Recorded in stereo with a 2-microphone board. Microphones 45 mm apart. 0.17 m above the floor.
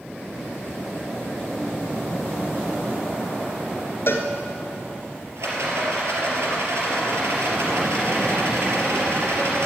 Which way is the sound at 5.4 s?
70° right (ahead or behind).